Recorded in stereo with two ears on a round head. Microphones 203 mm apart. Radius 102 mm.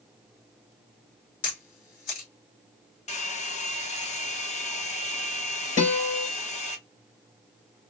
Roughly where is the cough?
No cough in this recording.